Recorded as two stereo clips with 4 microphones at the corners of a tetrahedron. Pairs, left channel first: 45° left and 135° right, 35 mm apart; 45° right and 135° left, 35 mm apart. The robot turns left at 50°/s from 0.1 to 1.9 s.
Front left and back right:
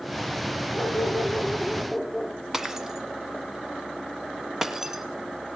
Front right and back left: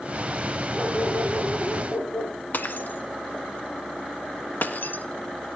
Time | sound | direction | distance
0.7 | a dog barking | 25° left | 6 m
2.5 | breaking glass | 60° right | 1.4 m